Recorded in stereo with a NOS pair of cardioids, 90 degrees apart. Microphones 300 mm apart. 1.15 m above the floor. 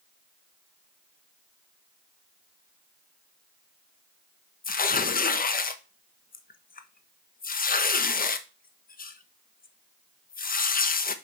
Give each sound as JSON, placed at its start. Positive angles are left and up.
{"t": 4.6, "sound": "tearing paper", "azimuth_deg": 30, "distance_m": 1.0}